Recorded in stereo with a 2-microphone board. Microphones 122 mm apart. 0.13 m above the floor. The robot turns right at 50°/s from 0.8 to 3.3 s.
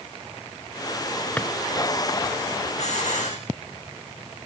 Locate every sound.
1.4 s a drawer: 10° left (ahead or behind), 0.6 m
2.8 s a hiss: 65° left (ahead or behind), 2 m; by 3.4 s 85° left, 2 m